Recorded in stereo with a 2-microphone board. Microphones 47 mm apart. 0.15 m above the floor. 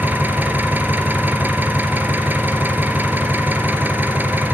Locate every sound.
0.0 s an engine running: 50° right (ahead or behind), 2 m